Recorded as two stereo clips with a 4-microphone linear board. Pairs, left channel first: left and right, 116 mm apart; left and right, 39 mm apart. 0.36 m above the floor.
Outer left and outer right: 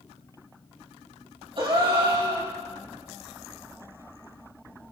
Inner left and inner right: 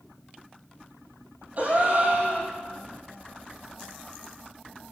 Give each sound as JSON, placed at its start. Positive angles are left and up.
{"t": 1.6, "sound": "a gasp", "side_deg": -45, "distance_m": 4.0}